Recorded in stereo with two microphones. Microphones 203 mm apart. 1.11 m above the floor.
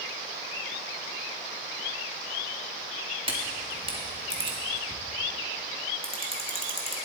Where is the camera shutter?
25° right (ahead or behind), 1.8 m.